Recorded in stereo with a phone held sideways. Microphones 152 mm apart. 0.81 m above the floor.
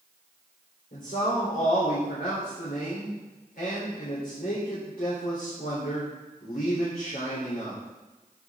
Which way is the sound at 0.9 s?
75° left (ahead or behind).